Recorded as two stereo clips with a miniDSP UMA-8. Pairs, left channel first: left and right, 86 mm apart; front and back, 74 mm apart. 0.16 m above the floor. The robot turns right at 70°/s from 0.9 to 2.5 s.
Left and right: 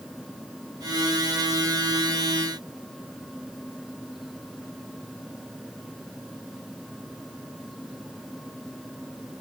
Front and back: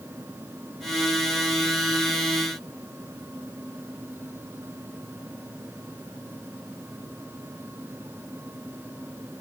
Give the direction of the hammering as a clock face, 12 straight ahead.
No hammering in this recording.